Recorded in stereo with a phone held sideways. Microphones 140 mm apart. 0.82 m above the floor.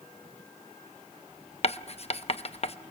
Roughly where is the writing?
Left.